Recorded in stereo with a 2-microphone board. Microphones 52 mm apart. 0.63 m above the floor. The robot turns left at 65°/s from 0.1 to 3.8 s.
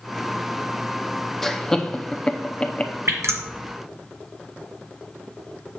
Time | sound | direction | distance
1.4 | laughter | 5° left (ahead or behind) | 0.7 m
3.1 | dripping | 70° right (ahead or behind) | 1.9 m